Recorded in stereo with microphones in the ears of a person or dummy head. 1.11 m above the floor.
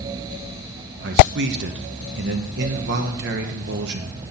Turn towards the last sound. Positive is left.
turn(degrees=-55)  # may be behind; listen again after turning